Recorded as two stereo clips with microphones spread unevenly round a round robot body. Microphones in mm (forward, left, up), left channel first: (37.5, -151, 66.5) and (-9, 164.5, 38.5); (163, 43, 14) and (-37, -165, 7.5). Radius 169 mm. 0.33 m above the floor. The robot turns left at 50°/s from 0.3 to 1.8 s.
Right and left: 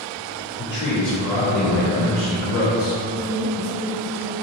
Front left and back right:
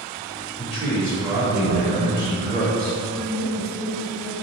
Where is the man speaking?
35° right, 1.3 m; by 3.0 s 95° right, 1.3 m.